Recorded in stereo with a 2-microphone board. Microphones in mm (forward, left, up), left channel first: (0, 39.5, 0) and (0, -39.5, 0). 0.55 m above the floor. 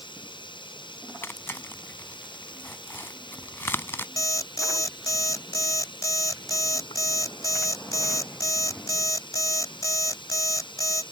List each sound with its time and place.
0.0 s running water: 80° left
1.2 s tearing paper: 30° left (ahead or behind)
4.2 s an alarm clock: 45° left (ahead or behind)